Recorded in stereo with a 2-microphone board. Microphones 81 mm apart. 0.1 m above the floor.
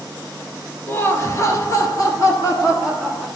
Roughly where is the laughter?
Left.